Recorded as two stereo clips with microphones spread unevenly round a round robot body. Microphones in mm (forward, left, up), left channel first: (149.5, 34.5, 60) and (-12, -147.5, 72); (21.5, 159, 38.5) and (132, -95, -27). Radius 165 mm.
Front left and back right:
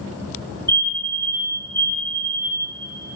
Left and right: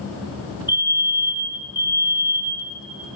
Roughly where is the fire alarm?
Ahead.